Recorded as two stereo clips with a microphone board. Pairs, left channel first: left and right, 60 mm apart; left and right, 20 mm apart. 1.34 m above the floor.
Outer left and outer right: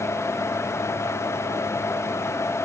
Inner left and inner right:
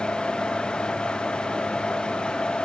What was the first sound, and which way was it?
Only background noise.